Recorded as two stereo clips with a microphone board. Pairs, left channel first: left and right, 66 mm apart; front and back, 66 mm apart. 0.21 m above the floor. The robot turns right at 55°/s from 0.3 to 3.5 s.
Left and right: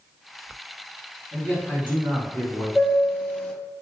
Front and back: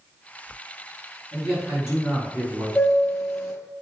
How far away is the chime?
About 0.9 m.